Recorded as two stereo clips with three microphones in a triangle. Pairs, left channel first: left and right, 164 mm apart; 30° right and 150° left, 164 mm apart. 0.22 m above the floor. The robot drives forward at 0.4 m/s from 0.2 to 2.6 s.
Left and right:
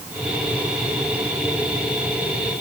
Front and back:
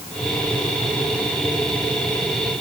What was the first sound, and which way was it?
Only background noise.